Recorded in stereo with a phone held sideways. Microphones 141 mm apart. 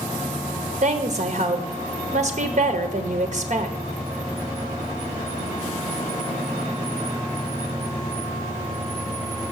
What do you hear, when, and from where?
0.8 s a woman speaking: 55° right (ahead or behind), 0.9 m